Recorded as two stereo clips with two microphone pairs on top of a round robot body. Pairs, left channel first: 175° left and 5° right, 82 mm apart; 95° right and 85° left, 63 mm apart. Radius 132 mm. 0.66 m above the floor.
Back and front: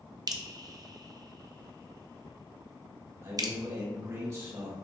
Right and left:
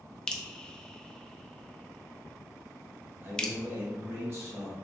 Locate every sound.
0.3 s dripping: 10° right, 0.7 m
3.2 s a man speaking: 35° left, 1.7 m